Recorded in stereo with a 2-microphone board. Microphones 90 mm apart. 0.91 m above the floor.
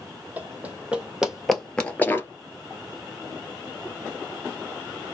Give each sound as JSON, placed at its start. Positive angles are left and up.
{"t": 0.4, "sound": "running footsteps", "side_deg": -20, "distance_m": 1.9}